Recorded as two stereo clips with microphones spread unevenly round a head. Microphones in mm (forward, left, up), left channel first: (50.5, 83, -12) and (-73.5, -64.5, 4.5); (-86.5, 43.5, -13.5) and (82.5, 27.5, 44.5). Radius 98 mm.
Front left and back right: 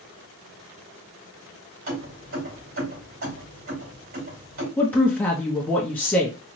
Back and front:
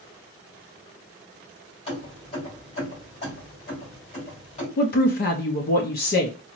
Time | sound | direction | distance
1.9 | keys jangling | 120° right | 2.5 m
4.8 | a woman speaking | 135° left | 0.6 m